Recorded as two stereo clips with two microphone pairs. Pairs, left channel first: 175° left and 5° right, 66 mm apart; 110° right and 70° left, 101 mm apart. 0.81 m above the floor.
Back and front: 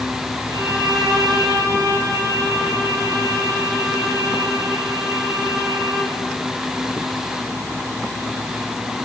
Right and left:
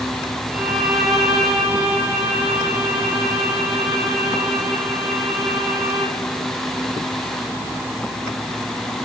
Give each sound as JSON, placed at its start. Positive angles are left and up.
{"t": 0.5, "sound": "a violin", "azimuth_deg": -15, "distance_m": 7.0}